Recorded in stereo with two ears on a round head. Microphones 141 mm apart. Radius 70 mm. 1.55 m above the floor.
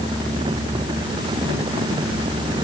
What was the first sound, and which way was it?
Only background noise.